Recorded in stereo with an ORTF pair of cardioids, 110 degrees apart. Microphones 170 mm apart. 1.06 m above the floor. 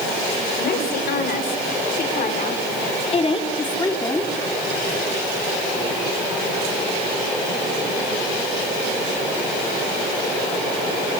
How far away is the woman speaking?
About 4.5 m.